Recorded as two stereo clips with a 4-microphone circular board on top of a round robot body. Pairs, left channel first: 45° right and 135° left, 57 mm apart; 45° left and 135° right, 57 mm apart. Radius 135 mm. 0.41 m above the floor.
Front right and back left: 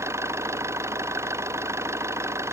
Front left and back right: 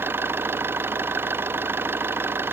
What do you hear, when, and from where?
0.0 s an engine running: 175° left